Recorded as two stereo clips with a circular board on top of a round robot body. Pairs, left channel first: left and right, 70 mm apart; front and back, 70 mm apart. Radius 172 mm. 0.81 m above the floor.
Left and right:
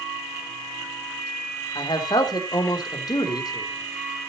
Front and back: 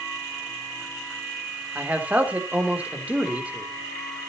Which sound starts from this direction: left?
A man speaking, at 1.8 s.